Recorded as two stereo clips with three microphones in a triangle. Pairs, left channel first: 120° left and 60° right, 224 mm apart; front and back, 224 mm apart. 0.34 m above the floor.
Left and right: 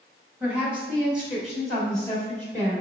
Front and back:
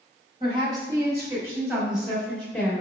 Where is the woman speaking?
135° right, 1.7 m; by 2.8 s 55° left, 1.5 m.